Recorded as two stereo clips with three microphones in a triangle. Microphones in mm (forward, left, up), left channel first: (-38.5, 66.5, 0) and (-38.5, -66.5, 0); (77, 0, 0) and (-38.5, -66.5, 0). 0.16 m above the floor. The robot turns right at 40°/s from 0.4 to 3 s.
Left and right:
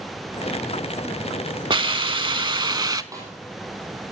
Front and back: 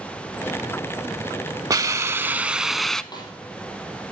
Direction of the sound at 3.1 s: 25° right.